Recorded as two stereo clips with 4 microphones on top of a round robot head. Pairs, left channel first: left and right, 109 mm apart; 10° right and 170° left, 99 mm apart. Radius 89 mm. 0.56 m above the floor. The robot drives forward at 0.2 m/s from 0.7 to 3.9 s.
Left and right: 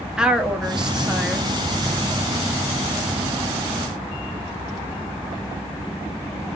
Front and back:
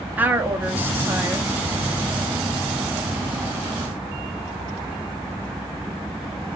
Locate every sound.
0.2 s a woman speaking: 160° right, 0.7 m; by 1.5 s 170° right, 0.8 m